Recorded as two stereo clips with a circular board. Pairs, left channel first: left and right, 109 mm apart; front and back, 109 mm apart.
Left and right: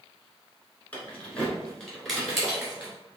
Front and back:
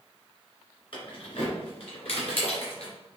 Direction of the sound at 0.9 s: 20° left.